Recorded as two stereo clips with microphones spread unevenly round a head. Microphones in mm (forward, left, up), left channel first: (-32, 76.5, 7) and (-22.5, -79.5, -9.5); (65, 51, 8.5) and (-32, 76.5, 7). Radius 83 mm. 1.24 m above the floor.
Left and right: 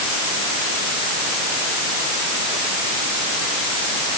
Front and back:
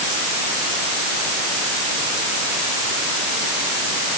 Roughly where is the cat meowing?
I don't hear a cat meowing.